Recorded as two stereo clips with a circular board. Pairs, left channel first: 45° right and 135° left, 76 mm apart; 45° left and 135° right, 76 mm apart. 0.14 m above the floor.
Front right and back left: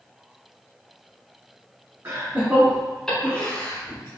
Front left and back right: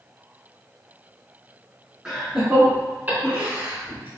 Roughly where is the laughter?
Behind left.